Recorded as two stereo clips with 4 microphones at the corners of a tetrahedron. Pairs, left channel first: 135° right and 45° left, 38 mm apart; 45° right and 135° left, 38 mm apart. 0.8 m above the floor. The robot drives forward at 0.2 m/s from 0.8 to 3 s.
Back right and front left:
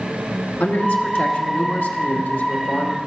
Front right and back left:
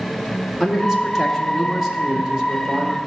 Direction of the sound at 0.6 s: 140° right.